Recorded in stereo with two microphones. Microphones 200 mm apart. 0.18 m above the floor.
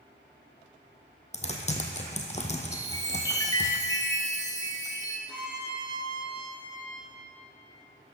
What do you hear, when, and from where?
1.3 s typing on a keyboard: 35° left (ahead or behind), 1.5 m
2.7 s a chime: 20° left (ahead or behind), 1.8 m
5.3 s a violin: 20° left (ahead or behind), 4.5 m